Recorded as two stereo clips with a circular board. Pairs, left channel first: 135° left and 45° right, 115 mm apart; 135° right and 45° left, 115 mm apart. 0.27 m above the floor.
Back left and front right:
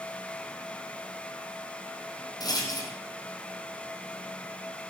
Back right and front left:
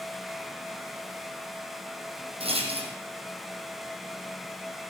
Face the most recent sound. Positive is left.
turn(degrees=80)